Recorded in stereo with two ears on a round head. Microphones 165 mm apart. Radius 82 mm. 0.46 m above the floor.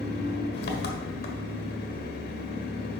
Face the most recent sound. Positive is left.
turn(degrees=55)  # may be behind; listen again after turning